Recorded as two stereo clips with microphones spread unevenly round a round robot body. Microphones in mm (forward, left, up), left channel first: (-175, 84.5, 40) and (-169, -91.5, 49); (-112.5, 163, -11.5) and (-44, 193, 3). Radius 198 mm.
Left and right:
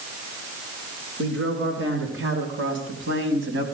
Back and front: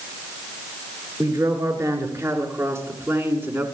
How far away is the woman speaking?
About 6.5 m.